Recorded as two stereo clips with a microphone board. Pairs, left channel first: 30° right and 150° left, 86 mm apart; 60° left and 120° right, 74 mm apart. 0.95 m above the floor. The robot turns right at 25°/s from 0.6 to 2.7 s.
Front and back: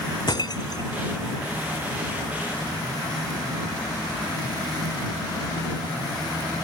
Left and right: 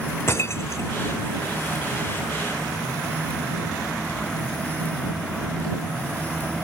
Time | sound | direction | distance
0.3 | breaking glass | 5° left | ?